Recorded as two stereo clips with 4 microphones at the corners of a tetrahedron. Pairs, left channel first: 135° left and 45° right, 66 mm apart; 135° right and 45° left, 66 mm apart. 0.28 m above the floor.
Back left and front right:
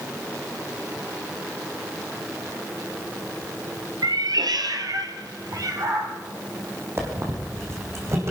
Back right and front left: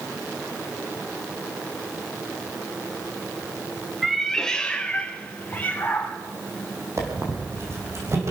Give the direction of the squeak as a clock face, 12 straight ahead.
12 o'clock.